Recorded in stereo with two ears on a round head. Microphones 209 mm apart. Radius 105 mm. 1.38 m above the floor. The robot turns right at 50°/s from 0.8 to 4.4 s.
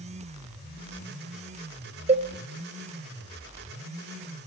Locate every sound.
2.1 s a cowbell: 30° right (ahead or behind), 1.0 m; by 2.3 s 35° right (ahead or behind), 1.0 m